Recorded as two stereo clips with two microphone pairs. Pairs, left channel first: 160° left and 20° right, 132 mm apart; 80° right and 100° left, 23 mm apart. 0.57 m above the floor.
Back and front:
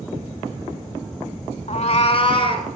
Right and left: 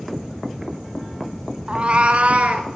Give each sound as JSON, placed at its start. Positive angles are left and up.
{"t": 1.7, "sound": "a cat meowing", "azimuth_deg": 145, "distance_m": 0.7}